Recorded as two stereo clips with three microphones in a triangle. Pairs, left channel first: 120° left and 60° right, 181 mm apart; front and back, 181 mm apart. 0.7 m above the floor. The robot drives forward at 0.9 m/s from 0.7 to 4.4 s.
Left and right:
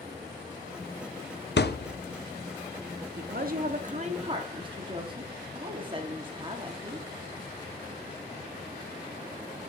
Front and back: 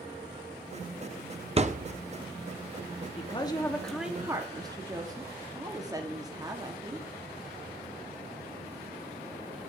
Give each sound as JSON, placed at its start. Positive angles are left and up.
{"t": 1.6, "sound": "a thud", "azimuth_deg": 130, "distance_m": 0.5}
{"t": 3.2, "sound": "a woman speaking", "azimuth_deg": -50, "distance_m": 1.3}